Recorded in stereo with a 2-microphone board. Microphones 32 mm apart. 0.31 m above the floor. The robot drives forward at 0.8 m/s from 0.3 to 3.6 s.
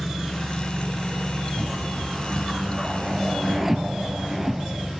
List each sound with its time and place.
0.0 s an engine running: 5° right (ahead or behind), 4 m; by 5.0 s centre (ahead or behind), 6.5 m
1.6 s a whoosh: 20° right (ahead or behind), 0.6 m; by 4.9 s 5° right (ahead or behind), 2 m